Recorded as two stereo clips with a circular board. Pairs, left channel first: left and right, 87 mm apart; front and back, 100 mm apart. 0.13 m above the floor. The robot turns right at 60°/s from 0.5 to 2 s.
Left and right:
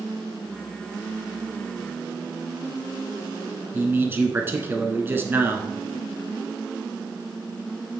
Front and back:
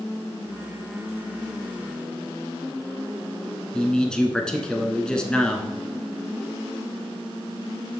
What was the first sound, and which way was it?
A man speaking, 75° right.